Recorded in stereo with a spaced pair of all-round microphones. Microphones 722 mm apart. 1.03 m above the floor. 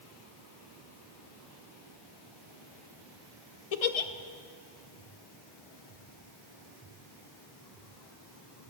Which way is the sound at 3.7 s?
55° left (ahead or behind).